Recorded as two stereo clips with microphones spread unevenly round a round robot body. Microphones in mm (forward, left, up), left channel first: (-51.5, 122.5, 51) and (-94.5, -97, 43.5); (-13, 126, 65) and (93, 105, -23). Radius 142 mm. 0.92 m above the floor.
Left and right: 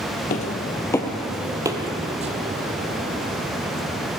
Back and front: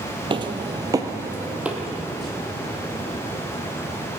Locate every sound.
0.3 s footsteps: 80° left, 1.0 m; by 4.1 s 145° right, 2.5 m